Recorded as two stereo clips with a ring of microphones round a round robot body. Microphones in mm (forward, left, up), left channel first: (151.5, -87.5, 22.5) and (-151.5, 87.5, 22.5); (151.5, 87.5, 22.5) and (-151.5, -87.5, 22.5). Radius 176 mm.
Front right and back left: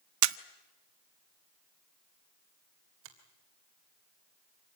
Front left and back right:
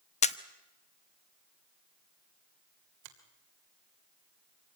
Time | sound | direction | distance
0.2 | a camera shutter | 105° left | 0.5 m
3.0 | a finger snap | 155° right | 3 m